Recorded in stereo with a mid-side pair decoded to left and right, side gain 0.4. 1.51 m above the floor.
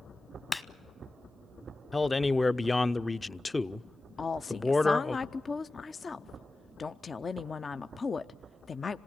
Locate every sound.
0.5 s a clap: 20° left, 1.0 m
1.9 s a man speaking: 20° left, 0.6 m
4.2 s a woman speaking: 40° left, 0.5 m